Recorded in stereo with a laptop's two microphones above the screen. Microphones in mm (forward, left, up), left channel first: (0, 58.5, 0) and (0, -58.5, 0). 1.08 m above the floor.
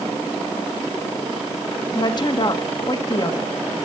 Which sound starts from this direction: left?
A woman speaking, at 1.9 s.